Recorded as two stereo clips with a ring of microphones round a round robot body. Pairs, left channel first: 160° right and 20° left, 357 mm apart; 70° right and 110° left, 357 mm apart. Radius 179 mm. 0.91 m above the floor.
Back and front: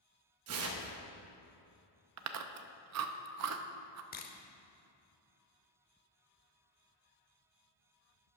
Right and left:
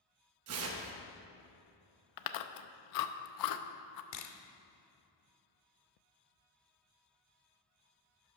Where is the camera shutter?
100° right, 0.8 m.